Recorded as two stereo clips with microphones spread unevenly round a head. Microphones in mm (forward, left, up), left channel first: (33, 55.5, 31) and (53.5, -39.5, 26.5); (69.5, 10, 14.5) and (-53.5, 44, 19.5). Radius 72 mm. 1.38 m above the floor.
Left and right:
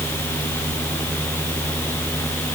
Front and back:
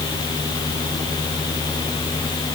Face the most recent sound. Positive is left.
No sound to turn to.